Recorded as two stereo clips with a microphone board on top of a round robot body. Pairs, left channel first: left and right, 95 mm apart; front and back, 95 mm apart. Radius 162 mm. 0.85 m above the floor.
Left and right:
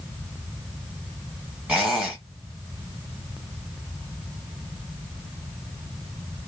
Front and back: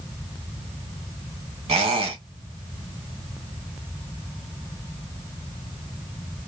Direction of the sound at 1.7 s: 170° right.